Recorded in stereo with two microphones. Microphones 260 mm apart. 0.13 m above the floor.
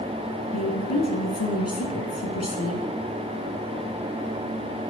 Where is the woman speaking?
65° left (ahead or behind), 3.5 m.